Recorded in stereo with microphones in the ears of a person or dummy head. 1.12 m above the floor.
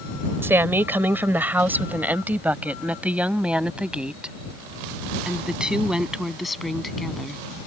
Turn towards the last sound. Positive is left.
turn(degrees=0)  # may be behind; listen again after turning